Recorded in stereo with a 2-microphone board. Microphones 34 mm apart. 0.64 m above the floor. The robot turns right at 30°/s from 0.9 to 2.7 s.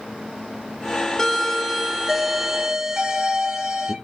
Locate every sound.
1.2 s a doorbell: 170° left, 1.8 m; by 4.0 s 145° right, 1.8 m